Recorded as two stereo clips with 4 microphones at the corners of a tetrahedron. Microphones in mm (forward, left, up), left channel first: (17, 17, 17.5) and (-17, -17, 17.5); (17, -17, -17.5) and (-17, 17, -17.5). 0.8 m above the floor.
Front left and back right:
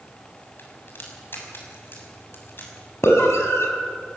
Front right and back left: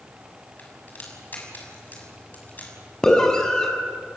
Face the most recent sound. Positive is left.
turn(degrees=30)